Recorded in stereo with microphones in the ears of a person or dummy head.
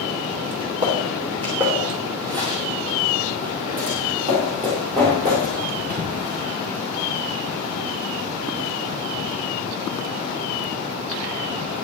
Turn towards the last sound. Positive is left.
turn(degrees=-40)  # may be behind; listen again after turning